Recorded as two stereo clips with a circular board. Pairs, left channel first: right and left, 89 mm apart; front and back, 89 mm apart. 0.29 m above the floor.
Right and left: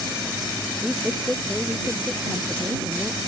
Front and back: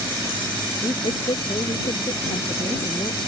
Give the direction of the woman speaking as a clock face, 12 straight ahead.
12 o'clock.